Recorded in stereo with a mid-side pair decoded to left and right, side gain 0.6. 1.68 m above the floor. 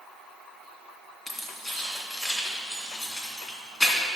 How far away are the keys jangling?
About 2.5 m.